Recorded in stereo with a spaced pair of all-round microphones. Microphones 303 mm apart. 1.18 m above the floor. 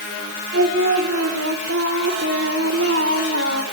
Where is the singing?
45° right (ahead or behind), 3 m.